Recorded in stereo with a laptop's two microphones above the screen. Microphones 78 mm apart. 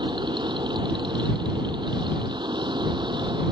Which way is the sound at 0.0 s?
80° right.